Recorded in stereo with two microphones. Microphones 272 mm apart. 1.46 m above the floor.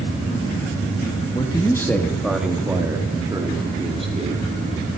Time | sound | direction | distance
1.4 | a man speaking | 15° left (ahead or behind) | 2.0 m